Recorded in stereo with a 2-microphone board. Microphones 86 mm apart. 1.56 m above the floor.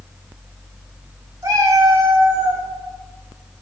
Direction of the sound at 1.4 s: 45° right (ahead or behind).